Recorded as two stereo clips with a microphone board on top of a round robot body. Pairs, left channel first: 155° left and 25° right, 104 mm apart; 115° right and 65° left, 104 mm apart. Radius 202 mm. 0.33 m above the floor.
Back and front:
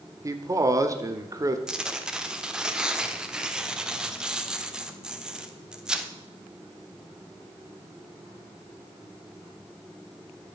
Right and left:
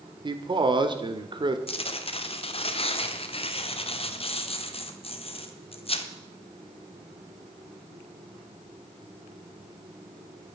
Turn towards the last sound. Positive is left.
turn(degrees=-105)